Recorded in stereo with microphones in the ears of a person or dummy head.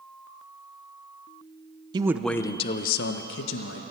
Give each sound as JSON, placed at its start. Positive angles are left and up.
{"t": 1.9, "sound": "a man speaking", "side_deg": -25, "distance_m": 0.6}